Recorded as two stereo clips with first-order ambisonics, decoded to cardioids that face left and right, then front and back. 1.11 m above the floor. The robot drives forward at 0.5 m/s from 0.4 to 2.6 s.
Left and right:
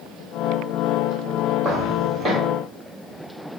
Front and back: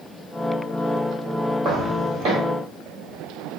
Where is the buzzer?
No buzzer in this recording.